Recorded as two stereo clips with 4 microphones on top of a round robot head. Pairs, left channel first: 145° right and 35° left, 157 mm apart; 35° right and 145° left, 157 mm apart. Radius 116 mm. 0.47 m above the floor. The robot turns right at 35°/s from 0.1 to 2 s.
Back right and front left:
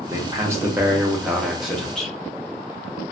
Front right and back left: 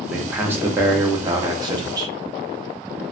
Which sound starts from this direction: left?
A man speaking, at 0.1 s.